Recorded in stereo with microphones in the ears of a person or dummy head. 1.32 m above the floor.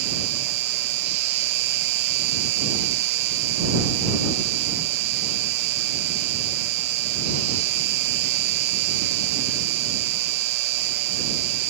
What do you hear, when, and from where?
0.0 s an insect: 60° right (ahead or behind)